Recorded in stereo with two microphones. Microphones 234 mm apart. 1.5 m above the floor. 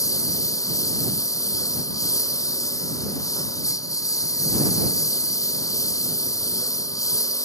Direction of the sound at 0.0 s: 15° left (ahead or behind).